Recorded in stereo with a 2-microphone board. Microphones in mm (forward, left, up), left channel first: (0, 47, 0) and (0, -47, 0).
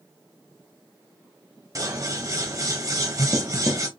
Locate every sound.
1.8 s scissors: 40° right (ahead or behind), 1.0 m